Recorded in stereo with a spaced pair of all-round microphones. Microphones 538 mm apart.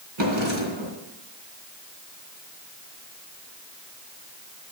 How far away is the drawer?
About 3 m.